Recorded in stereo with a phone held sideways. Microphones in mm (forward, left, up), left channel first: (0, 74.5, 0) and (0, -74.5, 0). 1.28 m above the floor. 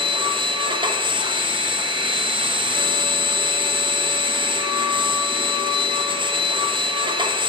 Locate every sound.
0.0 s a machine running: 35° right (ahead or behind), 0.8 m